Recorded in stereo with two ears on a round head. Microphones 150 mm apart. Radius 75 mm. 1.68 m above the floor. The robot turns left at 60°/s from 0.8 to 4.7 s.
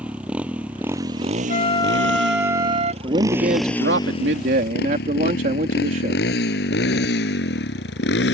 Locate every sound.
0.0 s a motorcycle: 5° right (ahead or behind); by 8.3 s 75° left (ahead or behind)
1.5 s a flute: 45° left; by 2.9 s 40° right
3.0 s a man speaking: 25° right; by 6.2 s 125° right